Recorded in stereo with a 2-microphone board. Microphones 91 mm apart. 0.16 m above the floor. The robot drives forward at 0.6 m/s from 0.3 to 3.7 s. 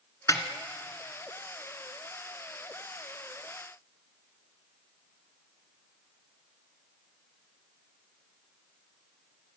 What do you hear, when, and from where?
0.3 s a snare drum: 40° left (ahead or behind), 1.3 m; by 0.4 s 35° left (ahead or behind), 1.3 m